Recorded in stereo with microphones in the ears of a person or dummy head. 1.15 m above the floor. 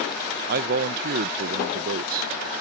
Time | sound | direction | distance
0.5 | a man speaking | 55° right (ahead or behind) | ?